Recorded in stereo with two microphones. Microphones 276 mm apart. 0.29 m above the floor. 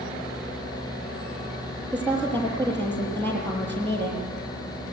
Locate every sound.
1.9 s a woman speaking: 5° left (ahead or behind), 9.5 m